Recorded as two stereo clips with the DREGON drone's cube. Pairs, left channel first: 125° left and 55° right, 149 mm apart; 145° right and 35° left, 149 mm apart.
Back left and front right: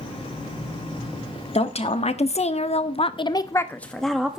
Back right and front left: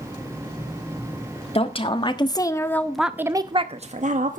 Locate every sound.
1.6 s a woman speaking: 165° left, 1.4 m; by 4.4 s 30° left, 1.1 m